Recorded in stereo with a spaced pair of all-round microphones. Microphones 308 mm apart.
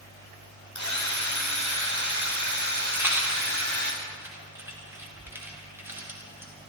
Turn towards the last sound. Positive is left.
turn(degrees=-5)  # may be behind; listen again after turning